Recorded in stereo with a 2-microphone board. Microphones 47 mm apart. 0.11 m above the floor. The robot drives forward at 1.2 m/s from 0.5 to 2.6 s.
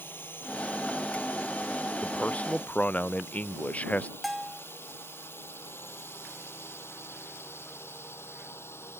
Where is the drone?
50° left (ahead or behind); by 9.0 s 65° left (ahead or behind).